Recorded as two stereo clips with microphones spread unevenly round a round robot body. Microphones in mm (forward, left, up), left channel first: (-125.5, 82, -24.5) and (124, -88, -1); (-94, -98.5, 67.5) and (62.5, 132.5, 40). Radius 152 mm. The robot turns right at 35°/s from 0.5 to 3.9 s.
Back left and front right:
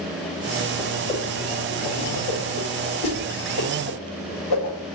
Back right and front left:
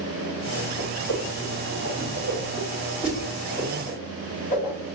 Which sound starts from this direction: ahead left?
A whoosh, at 0.8 s.